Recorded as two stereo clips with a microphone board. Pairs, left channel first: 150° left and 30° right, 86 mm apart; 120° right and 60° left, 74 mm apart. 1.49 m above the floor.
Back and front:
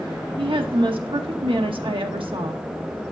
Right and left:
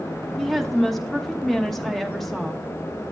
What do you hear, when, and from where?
0.4 s a woman speaking: 35° right, 1.0 m